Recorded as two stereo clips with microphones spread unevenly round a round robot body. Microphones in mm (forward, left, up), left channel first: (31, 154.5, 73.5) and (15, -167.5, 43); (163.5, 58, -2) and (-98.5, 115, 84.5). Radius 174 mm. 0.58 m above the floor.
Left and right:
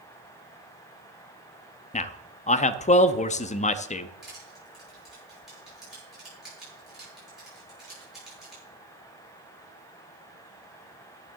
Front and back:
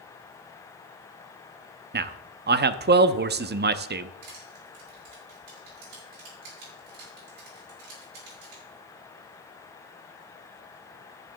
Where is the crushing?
Straight behind, 8 m.